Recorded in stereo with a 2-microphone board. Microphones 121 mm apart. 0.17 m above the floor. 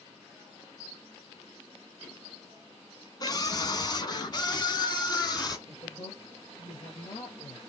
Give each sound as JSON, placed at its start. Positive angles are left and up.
{"t": 3.2, "sound": "a scream", "side_deg": 35, "distance_m": 1.6}
{"t": 5.7, "sound": "a woman speaking", "side_deg": 50, "distance_m": 3.5}